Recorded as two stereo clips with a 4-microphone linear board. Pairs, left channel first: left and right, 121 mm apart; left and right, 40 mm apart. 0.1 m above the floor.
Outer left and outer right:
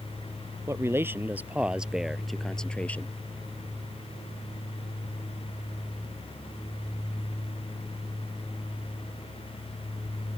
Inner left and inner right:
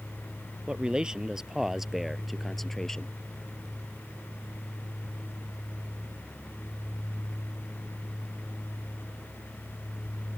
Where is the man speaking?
20° right (ahead or behind); by 3.1 s 15° left (ahead or behind).